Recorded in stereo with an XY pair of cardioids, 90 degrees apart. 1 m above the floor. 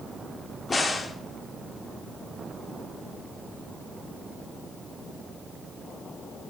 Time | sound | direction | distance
0.7 | a crack | 30° left | 0.7 m